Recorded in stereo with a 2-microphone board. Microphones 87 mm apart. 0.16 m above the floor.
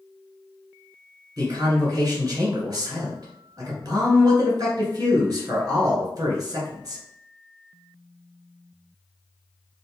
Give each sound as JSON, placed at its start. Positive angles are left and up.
{"t": 1.4, "sound": "a man speaking", "side_deg": -45, "distance_m": 1.8}